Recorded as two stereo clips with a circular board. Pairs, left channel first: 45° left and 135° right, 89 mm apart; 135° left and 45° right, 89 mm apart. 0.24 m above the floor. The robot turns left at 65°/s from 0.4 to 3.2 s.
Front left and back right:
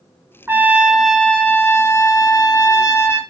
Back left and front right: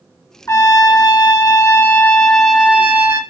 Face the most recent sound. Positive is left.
turn(degrees=-5)